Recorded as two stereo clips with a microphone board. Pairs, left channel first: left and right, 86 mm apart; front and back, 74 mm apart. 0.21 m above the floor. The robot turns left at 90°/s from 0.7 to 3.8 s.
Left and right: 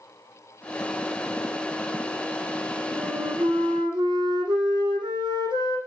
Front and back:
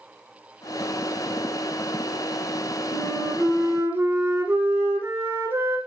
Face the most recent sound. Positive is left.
turn(degrees=-120)